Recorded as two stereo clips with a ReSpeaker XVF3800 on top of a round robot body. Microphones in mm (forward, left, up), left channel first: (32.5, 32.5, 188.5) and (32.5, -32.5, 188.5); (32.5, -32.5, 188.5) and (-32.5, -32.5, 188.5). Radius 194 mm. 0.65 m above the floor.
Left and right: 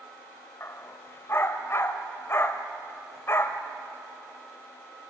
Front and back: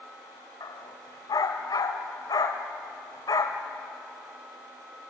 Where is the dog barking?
35° left, 0.9 m.